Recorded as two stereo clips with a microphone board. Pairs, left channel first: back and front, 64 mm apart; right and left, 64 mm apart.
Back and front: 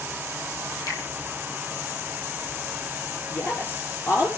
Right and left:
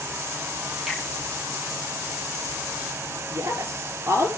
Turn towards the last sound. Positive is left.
turn(degrees=130)